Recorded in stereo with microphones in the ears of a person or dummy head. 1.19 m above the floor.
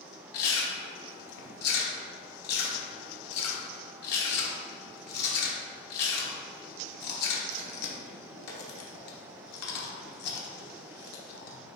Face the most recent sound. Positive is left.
turn(degrees=55)  # may be behind; listen again after turning